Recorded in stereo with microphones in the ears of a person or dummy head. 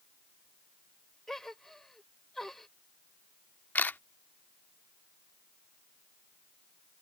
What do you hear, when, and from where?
1.3 s a gasp: centre (ahead or behind)
3.8 s a camera shutter: 10° left (ahead or behind)